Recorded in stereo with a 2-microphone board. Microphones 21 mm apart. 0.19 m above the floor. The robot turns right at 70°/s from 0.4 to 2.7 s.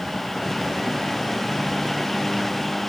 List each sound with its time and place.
Only background noise.